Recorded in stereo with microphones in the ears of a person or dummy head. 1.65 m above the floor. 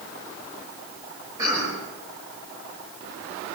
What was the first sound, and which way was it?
A cough, 15° right (ahead or behind).